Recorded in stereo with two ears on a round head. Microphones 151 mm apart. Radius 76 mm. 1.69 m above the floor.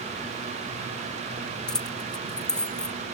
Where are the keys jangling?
5° left (ahead or behind).